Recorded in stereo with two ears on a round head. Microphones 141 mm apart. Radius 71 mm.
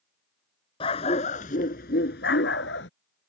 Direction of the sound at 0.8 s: 35° left (ahead or behind).